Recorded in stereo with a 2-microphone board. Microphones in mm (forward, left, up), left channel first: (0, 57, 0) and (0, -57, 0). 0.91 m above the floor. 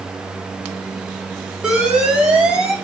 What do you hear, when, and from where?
1.6 s an alarm: 10° right (ahead or behind), 2.5 m